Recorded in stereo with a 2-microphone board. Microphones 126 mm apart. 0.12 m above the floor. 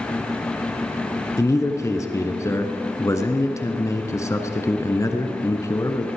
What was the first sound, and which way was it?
A man speaking, 25° left (ahead or behind).